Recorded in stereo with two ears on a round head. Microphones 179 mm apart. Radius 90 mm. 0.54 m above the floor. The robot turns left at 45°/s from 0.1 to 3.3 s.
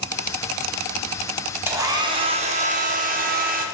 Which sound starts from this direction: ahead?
A hair dryer, at 1.7 s.